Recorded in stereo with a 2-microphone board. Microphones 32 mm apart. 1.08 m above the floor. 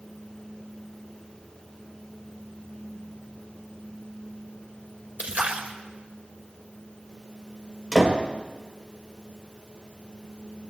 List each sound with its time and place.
5.2 s a splash: 55° right (ahead or behind), 2 m
7.9 s a door slam: 5° left (ahead or behind), 4 m